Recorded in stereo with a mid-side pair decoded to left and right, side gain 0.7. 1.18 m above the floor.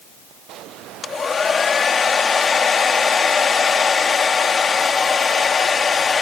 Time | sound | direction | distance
1.0 | a hair dryer | 25° left | ?